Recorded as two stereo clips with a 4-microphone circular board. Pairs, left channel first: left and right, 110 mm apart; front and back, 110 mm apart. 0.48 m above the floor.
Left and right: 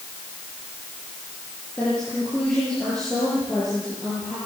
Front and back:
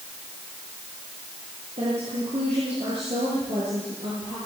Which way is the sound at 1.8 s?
170° left.